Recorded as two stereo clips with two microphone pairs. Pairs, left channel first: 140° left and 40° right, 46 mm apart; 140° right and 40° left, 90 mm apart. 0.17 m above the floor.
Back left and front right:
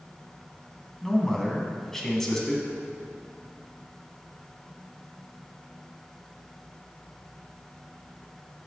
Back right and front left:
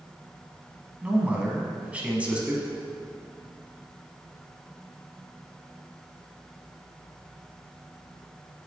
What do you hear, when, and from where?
1.0 s a man speaking: 80° left, 1.5 m